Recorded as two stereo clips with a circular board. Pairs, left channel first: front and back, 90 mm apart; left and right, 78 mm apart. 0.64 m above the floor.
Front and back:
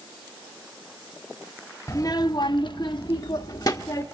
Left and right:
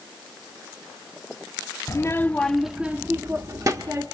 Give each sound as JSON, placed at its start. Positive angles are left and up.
{"t": 1.9, "sound": "a child speaking", "azimuth_deg": 50, "distance_m": 0.7}